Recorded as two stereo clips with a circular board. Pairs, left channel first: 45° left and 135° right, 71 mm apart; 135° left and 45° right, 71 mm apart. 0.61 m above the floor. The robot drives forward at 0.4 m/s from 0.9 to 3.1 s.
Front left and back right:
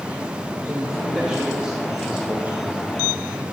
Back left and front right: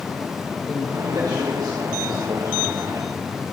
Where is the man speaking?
55° right, 2.5 m; by 2.8 s 70° right, 2.5 m.